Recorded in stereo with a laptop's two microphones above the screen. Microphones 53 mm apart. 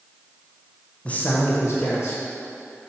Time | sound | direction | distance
1.1 | a man speaking | 25° left (ahead or behind) | 0.6 m